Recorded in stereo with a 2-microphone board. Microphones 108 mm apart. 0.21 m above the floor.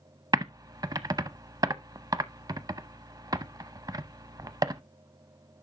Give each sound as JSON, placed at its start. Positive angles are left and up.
{"t": 0.3, "sound": "typing on a keyboard", "side_deg": -35, "distance_m": 0.5}